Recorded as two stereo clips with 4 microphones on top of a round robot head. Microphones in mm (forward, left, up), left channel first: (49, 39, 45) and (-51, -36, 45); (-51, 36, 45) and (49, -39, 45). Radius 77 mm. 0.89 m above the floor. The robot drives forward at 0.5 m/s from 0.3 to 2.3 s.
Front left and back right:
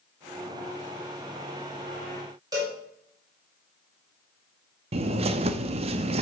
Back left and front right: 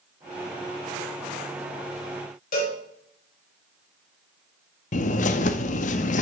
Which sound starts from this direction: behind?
A bird, at 4.9 s.